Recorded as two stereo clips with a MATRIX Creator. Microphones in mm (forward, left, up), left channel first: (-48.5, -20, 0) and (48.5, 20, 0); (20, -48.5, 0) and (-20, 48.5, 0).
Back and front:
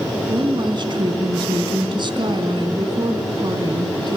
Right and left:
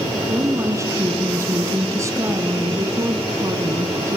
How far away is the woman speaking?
About 3 m.